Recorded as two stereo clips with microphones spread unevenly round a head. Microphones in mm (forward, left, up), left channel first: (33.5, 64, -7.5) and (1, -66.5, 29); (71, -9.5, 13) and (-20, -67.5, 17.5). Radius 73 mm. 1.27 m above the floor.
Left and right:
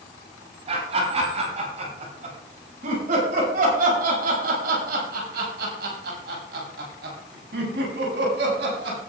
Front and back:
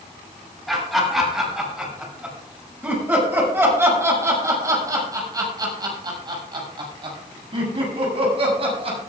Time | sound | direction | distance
0.7 | laughter | 55° right | 7.5 m